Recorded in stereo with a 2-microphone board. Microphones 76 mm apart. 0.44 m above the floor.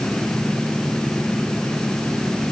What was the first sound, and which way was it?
Only background noise.